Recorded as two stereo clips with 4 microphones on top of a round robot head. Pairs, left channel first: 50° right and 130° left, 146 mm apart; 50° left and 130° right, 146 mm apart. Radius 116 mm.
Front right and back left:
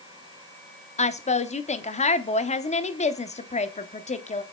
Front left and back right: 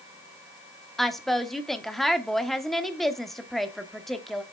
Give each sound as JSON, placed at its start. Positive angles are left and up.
{"t": 1.0, "sound": "a woman speaking", "azimuth_deg": -40, "distance_m": 1.1}